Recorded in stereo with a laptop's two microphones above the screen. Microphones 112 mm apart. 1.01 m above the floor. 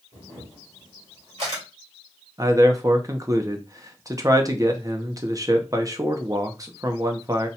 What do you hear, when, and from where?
0.1 s a camera shutter: 65° right (ahead or behind), 2 m
2.4 s a man speaking: 30° right (ahead or behind), 0.6 m